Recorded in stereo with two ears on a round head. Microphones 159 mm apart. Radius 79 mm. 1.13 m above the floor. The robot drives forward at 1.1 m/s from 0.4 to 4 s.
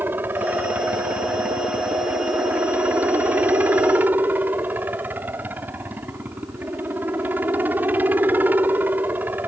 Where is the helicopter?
10° right (ahead or behind).